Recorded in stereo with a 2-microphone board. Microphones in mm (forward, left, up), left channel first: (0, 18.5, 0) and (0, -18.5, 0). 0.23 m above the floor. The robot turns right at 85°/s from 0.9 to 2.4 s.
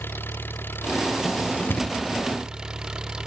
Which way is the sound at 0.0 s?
75° left.